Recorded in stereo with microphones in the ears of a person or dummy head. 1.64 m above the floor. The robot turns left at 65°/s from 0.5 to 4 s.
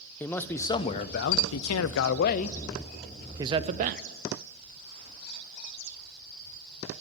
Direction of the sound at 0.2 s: 170° left.